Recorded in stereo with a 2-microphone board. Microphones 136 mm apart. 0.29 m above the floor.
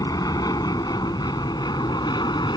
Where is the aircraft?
25° left (ahead or behind); by 2.6 s 30° left (ahead or behind).